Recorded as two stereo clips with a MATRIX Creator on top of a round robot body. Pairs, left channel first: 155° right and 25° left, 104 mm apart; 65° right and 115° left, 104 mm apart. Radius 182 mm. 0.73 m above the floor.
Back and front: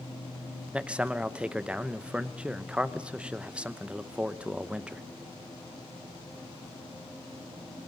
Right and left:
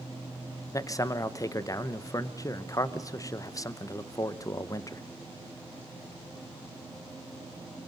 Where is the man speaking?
50° right, 1.2 m.